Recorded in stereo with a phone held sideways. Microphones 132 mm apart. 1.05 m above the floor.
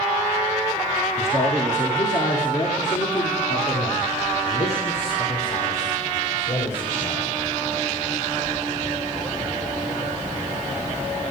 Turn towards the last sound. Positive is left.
turn(degrees=70)  # may be behind; listen again after turning